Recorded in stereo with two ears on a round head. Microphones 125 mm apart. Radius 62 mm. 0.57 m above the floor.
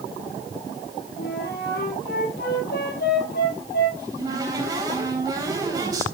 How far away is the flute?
About 4.5 m.